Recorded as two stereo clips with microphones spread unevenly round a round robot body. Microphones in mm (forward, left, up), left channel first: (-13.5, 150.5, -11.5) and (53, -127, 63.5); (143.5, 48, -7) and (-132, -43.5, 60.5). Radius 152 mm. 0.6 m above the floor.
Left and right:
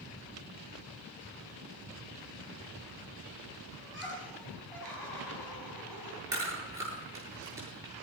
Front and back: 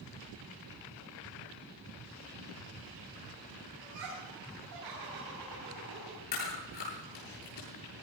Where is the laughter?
170° right, 5 m.